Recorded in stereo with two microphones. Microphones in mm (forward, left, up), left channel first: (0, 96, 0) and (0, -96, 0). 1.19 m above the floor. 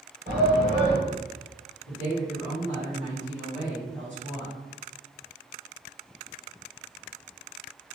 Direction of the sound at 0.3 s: 55° right (ahead or behind).